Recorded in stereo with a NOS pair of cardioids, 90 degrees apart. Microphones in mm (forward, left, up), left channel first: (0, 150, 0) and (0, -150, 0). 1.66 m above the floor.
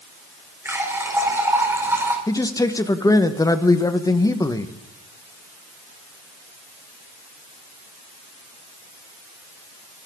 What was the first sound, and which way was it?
A running tap, 10° right.